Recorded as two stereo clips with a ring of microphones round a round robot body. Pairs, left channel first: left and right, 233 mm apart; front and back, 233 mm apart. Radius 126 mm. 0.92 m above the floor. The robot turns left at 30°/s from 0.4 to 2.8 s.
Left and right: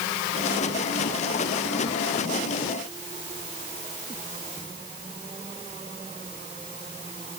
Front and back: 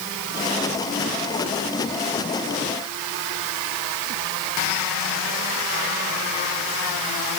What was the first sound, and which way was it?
Only background noise.